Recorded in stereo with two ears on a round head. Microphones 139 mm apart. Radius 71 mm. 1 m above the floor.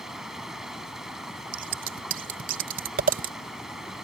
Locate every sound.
0.0 s running water: 5° right (ahead or behind)
1.5 s scissors: 55° right (ahead or behind)